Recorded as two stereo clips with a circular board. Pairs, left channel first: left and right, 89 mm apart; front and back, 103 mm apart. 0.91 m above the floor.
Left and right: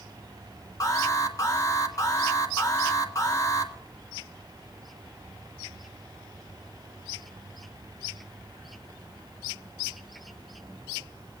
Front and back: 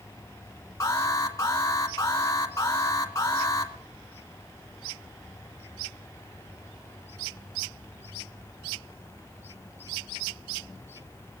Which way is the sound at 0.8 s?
50° left.